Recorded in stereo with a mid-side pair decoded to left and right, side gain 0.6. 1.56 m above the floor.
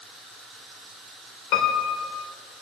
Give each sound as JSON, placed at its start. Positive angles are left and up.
{"t": 1.5, "sound": "a piano", "azimuth_deg": 65, "distance_m": 1.7}